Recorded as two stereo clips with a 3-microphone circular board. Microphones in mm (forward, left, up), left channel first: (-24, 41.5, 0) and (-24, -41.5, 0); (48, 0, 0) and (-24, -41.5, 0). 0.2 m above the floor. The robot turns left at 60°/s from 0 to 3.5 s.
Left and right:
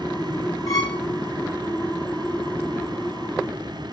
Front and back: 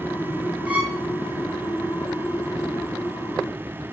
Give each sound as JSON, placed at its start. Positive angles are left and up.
{"t": 0.7, "sound": "a violin", "azimuth_deg": 135, "distance_m": 2.5}